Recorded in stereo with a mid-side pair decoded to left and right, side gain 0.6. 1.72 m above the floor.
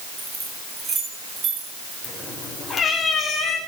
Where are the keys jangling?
25° right, 7 m; by 1.9 s 45° right, 8 m.